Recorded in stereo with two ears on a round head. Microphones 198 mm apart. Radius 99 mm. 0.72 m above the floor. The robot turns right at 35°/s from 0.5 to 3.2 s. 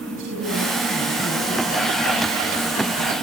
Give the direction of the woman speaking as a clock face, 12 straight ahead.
2 o'clock.